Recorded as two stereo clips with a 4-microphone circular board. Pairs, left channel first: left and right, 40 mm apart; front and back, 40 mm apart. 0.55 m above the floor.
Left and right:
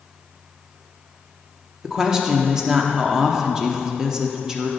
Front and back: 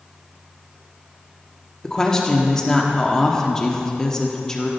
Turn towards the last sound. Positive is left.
turn(degrees=-50)